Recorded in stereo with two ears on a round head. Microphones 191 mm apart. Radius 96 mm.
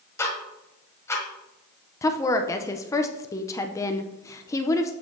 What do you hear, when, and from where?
0.2 s ticking: 15° left (ahead or behind), 1.4 m
2.0 s a woman speaking: 15° left (ahead or behind), 0.6 m